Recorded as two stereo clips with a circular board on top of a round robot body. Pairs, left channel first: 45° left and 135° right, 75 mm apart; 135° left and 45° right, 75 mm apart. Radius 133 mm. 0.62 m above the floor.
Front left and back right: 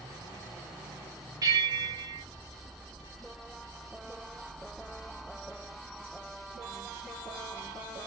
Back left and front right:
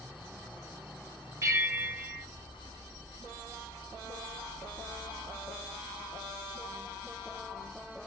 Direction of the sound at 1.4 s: 95° right.